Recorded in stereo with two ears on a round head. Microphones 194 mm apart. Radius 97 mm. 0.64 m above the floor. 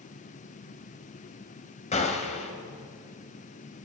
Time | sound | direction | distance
1.9 | a gunshot | 35° left (ahead or behind) | 3.5 m